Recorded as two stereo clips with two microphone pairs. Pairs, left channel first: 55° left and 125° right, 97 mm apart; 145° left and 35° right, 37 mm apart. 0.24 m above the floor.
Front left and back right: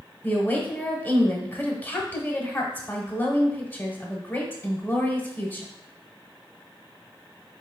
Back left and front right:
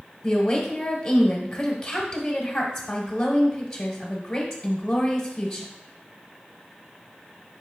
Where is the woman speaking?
75° left, 1.0 m.